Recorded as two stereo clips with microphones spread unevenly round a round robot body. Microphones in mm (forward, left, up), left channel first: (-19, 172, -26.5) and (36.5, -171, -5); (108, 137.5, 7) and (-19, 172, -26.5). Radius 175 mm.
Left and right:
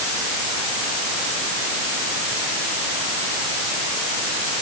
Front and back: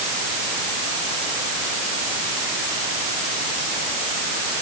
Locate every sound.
Only background noise.